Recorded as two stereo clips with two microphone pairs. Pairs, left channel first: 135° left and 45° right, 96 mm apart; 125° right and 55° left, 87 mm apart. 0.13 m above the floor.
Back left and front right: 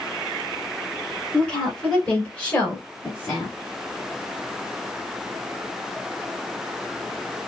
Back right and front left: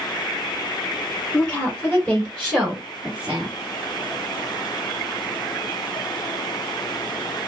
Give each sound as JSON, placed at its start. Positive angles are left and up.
{"t": 1.3, "sound": "a woman speaking", "azimuth_deg": -155, "distance_m": 1.8}